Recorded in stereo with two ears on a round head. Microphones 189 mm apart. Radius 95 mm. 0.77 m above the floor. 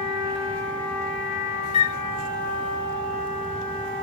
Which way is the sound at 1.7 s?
30° left (ahead or behind).